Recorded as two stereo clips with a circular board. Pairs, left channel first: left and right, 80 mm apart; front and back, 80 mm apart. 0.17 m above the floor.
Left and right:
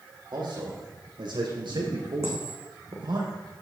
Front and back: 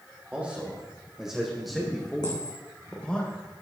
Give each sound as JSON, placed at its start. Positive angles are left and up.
{"t": 0.3, "sound": "a man speaking", "azimuth_deg": -105, "distance_m": 6.5}
{"t": 2.2, "sound": "a dropped coin", "azimuth_deg": -35, "distance_m": 3.5}